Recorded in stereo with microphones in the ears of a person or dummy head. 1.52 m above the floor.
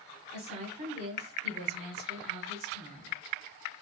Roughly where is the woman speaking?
Right.